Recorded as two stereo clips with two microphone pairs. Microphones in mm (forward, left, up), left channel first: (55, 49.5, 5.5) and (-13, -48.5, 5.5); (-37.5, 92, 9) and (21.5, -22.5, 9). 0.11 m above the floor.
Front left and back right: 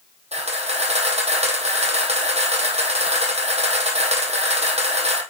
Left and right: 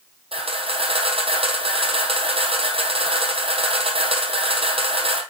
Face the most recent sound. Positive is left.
turn(degrees=-105)